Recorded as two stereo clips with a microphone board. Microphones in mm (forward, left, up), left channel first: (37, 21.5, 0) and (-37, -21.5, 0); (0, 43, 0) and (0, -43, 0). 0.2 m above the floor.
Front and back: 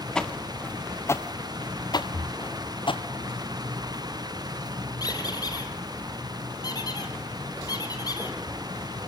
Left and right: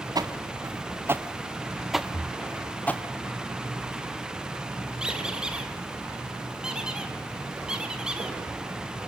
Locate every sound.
0.1 s footsteps: 50° right, 1.7 m; by 3.0 s 20° left, 1.8 m
2.1 s breathing: 30° left, 1.9 m
5.0 s a squeak: 10° right, 2.5 m